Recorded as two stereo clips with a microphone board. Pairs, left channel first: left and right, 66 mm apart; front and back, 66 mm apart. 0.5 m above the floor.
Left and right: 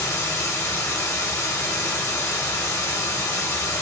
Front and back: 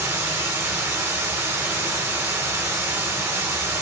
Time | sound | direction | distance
0.0 | running water | 125° left | 1.1 m